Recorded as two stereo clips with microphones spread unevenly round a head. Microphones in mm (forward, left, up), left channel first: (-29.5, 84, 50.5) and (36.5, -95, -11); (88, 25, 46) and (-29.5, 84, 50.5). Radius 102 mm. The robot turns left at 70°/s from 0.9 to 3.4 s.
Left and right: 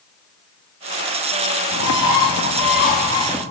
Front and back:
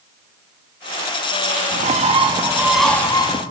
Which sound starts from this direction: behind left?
A bird, at 1.7 s.